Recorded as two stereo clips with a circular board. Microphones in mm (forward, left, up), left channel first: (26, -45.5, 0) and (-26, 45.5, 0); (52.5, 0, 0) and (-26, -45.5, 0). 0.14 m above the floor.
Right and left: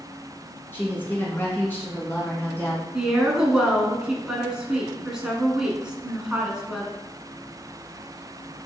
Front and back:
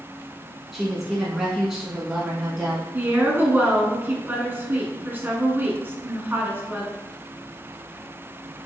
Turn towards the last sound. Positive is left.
turn(degrees=-170)